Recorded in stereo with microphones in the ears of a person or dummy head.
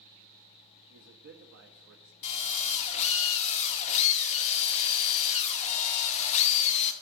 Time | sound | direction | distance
0.9 | a man speaking | 65° right (ahead or behind) | 0.7 m
2.2 | a drill | 40° left (ahead or behind) | 1.1 m